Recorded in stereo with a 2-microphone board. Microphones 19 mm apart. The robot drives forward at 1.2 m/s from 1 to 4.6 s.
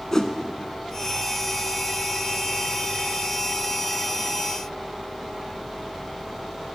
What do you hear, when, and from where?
0.1 s a whoosh: 30° left (ahead or behind), 0.5 m